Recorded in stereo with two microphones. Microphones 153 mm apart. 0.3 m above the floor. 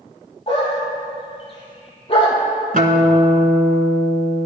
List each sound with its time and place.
0.5 s a dog barking: 35° left (ahead or behind), 3.5 m
2.7 s a guitar: 65° right (ahead or behind), 1.6 m